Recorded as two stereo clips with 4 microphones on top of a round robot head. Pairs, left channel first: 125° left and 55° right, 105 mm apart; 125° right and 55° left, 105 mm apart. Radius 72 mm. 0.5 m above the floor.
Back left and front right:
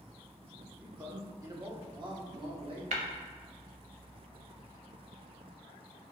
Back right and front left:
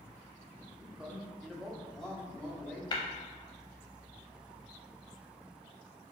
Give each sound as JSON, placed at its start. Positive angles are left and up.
{"t": 0.8, "sound": "a man speaking", "azimuth_deg": -5, "distance_m": 0.8}
{"t": 2.9, "sound": "tapping", "azimuth_deg": -70, "distance_m": 0.6}